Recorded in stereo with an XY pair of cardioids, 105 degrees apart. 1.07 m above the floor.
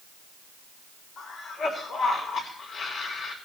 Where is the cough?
70° left, 3 m.